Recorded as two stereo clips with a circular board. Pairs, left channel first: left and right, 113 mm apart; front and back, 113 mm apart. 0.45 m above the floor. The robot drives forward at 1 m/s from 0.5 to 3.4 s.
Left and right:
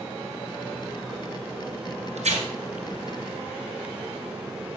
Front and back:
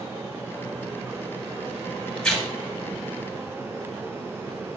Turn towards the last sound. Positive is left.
turn(degrees=-110)